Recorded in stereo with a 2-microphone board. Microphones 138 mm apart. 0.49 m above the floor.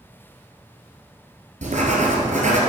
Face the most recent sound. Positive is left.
turn(degrees=-60)  # may be behind; listen again after turning